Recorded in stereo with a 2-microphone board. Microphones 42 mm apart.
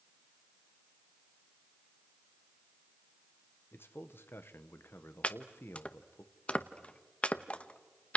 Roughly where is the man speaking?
Left.